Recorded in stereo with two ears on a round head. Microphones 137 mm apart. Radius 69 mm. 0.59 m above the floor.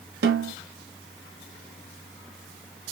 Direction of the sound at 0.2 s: 75° right (ahead or behind).